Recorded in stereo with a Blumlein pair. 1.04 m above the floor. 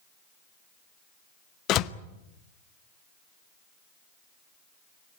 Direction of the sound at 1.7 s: 35° left.